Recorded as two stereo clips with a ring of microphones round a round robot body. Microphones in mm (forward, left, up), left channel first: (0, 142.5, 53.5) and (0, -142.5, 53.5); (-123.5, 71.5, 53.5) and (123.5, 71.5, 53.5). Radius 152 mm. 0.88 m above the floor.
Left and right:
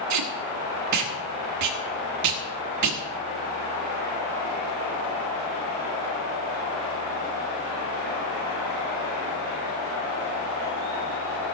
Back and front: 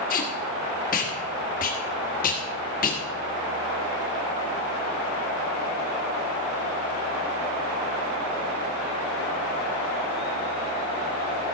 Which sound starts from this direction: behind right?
Tape being pulled, at 0.1 s.